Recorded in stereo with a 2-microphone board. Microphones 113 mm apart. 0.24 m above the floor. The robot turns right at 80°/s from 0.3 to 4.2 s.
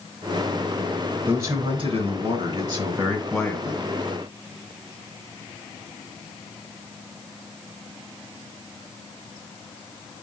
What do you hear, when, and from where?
1.3 s a man speaking: 165° right, 2.5 m; by 3.9 s 50° left, 2.5 m